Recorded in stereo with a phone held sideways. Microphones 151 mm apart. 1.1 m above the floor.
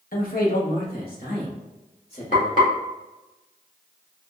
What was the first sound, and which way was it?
A man speaking, 70° left (ahead or behind).